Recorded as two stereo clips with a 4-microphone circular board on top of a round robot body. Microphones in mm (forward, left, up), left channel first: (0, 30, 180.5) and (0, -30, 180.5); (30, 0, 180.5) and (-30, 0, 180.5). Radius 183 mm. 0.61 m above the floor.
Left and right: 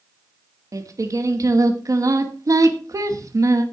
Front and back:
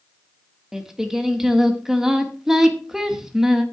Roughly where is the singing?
Right.